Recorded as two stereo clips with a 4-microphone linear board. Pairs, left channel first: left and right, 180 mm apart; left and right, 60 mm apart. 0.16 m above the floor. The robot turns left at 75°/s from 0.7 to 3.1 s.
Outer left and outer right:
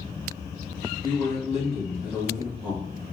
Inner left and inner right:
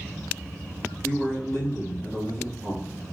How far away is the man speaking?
About 1.8 m.